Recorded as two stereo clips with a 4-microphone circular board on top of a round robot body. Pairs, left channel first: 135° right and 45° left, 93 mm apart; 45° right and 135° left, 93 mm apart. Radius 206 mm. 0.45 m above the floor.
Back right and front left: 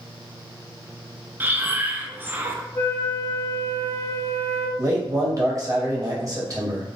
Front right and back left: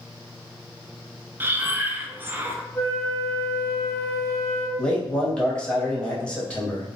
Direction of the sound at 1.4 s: 90° left.